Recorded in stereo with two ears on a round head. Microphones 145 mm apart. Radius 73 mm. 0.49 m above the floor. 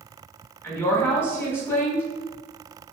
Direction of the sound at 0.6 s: 15° left (ahead or behind).